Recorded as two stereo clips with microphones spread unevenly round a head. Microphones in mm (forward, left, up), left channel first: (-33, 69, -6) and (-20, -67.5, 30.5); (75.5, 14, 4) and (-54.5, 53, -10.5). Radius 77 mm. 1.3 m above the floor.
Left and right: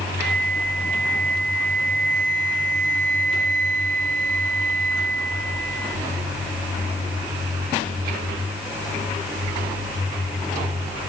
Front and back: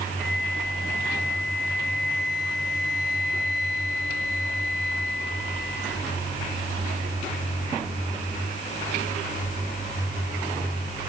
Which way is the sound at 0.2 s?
45° right.